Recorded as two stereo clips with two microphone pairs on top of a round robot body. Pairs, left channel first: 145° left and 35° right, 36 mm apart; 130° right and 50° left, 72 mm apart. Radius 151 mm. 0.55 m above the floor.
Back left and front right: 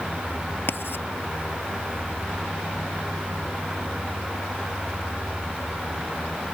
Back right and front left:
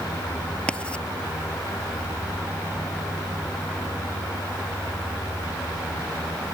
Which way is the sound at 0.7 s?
155° left.